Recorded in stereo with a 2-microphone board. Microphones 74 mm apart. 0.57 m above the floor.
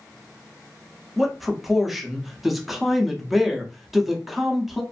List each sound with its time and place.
1.2 s a man speaking: centre (ahead or behind), 0.7 m